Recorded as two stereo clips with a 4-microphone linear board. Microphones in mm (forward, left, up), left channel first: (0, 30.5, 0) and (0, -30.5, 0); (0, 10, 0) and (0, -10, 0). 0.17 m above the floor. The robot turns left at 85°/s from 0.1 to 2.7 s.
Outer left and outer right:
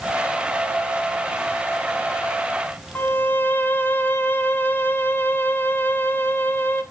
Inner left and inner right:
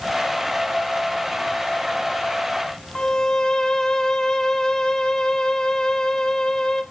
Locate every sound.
3.0 s a violin: 30° left (ahead or behind), 0.8 m